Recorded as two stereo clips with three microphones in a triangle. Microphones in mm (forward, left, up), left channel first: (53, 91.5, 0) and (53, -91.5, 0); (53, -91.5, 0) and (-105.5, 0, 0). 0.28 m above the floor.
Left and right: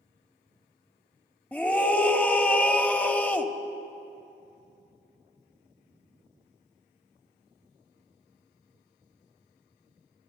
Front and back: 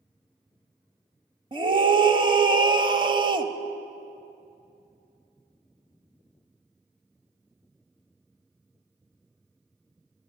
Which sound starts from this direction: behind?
A scream, at 1.5 s.